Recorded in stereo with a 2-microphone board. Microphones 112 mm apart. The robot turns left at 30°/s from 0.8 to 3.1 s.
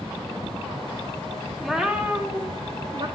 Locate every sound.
1.6 s a cat meowing: straight ahead, 2.5 m; by 3.1 s 45° right, 2.5 m